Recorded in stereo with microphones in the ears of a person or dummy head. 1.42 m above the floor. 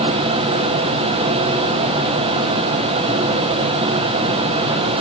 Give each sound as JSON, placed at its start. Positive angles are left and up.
{"t": 0.0, "sound": "a fan", "side_deg": -30, "distance_m": 2.5}